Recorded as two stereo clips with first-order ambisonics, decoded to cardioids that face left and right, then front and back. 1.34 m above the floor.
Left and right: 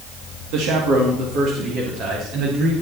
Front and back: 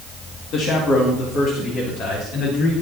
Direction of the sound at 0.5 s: 55° right.